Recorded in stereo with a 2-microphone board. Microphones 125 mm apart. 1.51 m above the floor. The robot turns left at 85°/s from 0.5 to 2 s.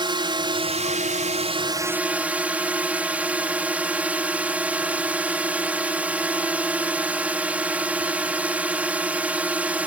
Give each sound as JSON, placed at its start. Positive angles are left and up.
{"t": 0.0, "sound": "a drone", "azimuth_deg": -40}